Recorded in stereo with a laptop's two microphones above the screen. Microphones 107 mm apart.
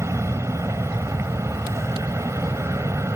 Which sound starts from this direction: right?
An aircraft, at 0.0 s.